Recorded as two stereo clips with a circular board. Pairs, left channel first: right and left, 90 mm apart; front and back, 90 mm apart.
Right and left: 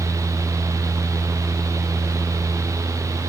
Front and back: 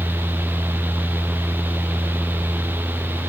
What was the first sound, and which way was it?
Only background noise.